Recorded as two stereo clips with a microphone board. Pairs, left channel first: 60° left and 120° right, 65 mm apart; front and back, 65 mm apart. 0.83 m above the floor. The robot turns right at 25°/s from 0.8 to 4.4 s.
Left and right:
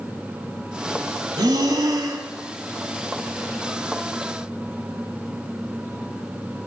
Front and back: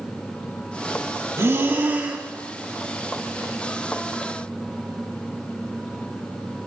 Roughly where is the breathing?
Behind right.